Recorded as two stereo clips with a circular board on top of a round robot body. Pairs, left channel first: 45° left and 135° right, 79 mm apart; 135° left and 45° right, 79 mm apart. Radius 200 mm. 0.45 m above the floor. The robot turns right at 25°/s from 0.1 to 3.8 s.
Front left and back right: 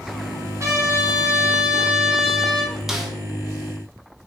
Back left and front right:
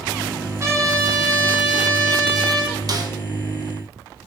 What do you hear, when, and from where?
0.6 s a trumpet: 90° right, 2.5 m; by 2.7 s 40° right, 2.5 m
2.9 s a snare drum: 50° right, 1.3 m; by 3.1 s 45° right, 1.3 m